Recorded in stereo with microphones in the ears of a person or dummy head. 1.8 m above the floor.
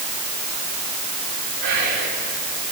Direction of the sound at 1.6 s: 60° right (ahead or behind).